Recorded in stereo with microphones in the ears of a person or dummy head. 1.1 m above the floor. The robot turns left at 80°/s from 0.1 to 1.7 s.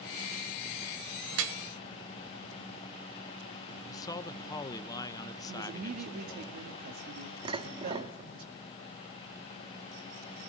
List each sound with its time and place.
1.3 s dripping: 70° right (ahead or behind), 1.9 m; by 1.6 s 75° right (ahead or behind), 1.9 m
3.9 s a man speaking: 20° left (ahead or behind), 0.9 m
5.5 s a woman speaking: 40° right (ahead or behind), 2 m
7.5 s dishes clattering: 25° right (ahead or behind), 1.1 m